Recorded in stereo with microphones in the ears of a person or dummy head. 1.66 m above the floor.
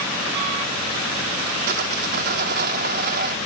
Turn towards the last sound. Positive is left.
turn(degrees=-50)  # may be behind; listen again after turning